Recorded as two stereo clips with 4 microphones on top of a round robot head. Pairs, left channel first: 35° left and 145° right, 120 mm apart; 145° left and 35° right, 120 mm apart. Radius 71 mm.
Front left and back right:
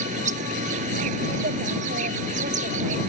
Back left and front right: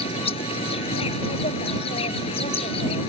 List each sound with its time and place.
0.0 s an insect: 170° right